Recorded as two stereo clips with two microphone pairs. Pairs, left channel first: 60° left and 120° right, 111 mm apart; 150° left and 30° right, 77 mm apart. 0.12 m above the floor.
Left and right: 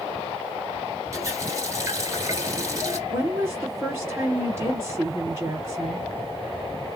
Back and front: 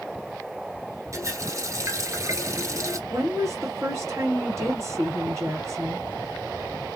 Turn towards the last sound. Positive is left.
turn(degrees=-60)